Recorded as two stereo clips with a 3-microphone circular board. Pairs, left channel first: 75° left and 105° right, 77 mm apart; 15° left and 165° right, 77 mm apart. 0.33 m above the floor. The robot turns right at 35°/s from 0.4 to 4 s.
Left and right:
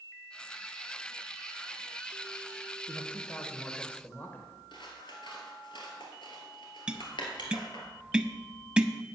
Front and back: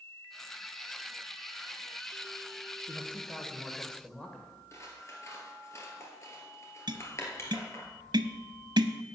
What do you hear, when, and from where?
2.9 s a man speaking: 35° left, 1.3 m; by 4.5 s 75° left, 1.3 m
4.7 s scissors: 65° left, 2 m
6.9 s tapping: straight behind, 0.6 m